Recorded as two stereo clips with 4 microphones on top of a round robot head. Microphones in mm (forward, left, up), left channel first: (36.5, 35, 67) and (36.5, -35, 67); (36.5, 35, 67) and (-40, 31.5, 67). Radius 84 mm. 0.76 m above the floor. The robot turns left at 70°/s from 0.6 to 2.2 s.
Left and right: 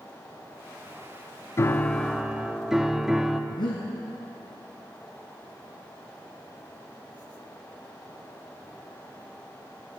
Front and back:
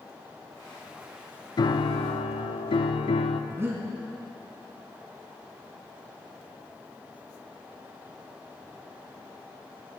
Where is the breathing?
125° left, 2.5 m.